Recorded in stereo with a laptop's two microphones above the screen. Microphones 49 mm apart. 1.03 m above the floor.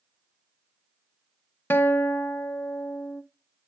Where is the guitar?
50° left (ahead or behind), 0.5 m.